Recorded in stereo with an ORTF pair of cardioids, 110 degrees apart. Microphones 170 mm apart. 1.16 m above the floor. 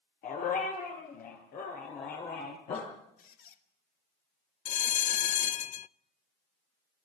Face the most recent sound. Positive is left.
turn(degrees=50)